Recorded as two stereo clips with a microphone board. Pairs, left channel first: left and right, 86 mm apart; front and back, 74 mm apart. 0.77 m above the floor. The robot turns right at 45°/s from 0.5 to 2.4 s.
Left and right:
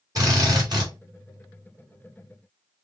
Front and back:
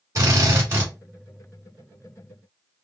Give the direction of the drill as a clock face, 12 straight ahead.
4 o'clock.